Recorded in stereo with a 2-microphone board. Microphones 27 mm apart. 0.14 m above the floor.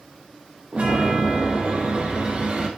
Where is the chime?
50° right (ahead or behind), 4 m.